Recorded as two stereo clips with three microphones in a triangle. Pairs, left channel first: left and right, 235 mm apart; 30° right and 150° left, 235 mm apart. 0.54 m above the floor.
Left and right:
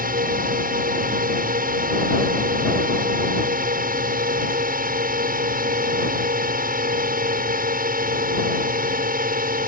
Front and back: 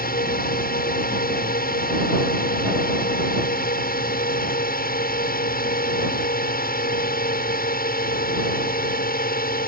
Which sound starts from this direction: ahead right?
A drone, at 0.0 s.